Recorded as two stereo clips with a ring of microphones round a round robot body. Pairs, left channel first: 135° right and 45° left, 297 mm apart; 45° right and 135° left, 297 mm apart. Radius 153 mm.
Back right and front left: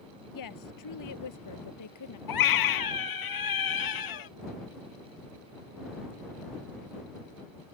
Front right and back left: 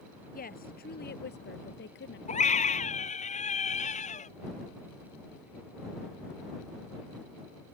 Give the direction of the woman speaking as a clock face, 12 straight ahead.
4 o'clock.